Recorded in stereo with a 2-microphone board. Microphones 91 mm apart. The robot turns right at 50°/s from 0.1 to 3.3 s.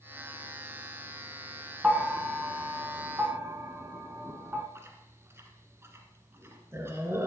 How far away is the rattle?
No rattle in this recording.